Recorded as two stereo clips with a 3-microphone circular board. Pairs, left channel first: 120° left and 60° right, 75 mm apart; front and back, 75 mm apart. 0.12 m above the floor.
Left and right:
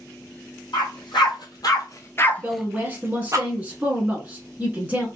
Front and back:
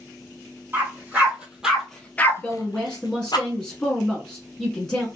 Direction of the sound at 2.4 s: 60° right.